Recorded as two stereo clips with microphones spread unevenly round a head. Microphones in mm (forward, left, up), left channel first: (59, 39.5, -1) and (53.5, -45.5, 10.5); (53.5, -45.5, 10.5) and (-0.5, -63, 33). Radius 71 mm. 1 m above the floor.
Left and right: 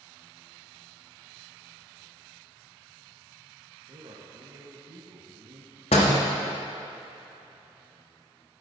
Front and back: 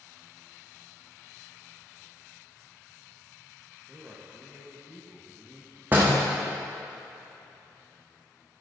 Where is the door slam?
120° left, 1.2 m.